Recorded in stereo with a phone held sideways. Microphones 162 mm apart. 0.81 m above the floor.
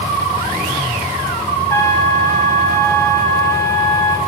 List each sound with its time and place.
1.7 s a trumpet: 15° left (ahead or behind), 3.5 m